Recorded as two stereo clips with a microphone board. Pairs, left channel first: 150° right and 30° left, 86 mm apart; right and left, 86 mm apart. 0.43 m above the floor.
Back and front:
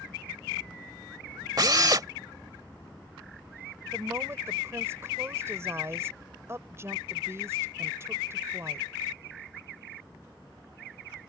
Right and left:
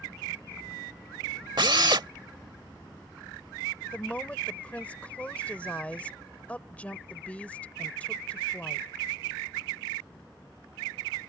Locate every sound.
1.6 s a drill: 70° left
3.9 s a woman speaking: 20° right